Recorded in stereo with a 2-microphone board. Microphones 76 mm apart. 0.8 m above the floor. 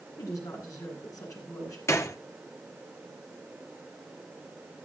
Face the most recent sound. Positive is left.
turn(degrees=40)  # may be behind; listen again after turning